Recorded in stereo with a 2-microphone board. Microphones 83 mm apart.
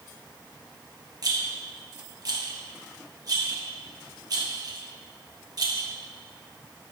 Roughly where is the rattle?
Right.